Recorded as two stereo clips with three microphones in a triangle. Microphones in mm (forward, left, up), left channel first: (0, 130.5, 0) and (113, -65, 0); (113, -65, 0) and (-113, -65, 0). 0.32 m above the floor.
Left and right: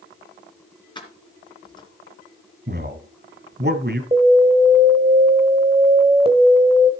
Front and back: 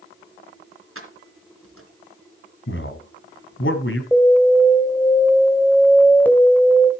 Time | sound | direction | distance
0.9 | keys jangling | 170° right | 3 m
2.7 | a man speaking | 20° right | 2 m
4.1 | an alarm | 75° right | 1.7 m